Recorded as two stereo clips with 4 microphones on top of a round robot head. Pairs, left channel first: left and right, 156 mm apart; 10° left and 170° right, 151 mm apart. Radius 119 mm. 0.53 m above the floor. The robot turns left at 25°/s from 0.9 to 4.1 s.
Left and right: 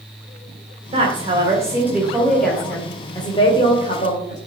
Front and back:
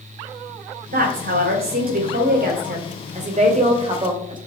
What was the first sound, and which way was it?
A woman speaking, 145° right.